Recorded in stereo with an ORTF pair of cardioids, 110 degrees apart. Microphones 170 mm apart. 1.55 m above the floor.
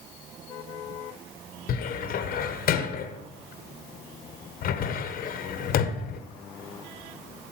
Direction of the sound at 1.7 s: 60° left.